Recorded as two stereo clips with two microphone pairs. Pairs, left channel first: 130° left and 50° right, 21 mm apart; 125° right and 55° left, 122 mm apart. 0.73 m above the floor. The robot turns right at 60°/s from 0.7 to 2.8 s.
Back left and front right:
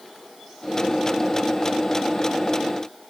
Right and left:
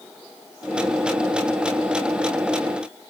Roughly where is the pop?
I don't hear a pop.